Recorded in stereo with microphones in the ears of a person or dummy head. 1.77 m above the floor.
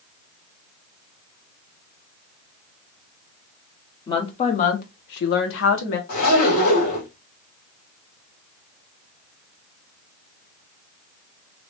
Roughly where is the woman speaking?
Left.